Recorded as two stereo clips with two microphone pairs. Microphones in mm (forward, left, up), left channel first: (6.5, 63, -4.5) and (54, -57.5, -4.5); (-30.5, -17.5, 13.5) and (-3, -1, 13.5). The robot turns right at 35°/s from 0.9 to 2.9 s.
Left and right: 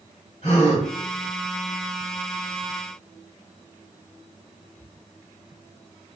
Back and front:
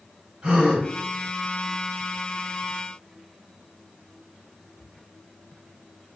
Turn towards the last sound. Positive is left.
turn(degrees=160)